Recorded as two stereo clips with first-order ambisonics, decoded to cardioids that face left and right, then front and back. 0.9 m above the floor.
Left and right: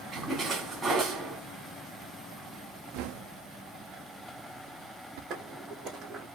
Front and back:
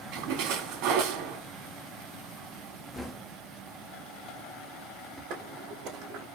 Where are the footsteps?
155° right, 2.5 m.